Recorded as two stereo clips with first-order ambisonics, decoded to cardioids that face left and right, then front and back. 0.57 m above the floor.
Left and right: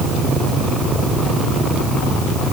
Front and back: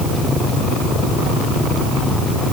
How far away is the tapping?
I don't hear tapping.